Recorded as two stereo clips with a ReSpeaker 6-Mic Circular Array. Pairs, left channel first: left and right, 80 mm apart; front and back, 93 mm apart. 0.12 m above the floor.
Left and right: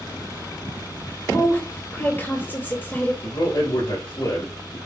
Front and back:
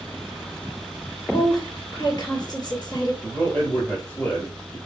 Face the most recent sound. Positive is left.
turn(degrees=75)